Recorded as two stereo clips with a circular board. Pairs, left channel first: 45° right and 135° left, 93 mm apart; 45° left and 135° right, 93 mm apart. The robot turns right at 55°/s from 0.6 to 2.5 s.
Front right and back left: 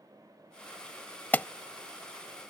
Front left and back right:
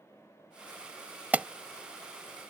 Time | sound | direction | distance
1.3 | an alarm | 90° right | ?